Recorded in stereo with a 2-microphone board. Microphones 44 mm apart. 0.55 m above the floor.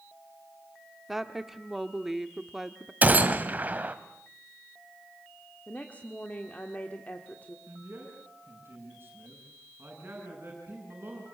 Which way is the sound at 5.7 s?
30° left (ahead or behind).